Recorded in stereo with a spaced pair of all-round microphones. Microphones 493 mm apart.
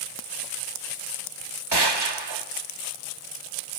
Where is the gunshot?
50° right (ahead or behind), 1.1 m.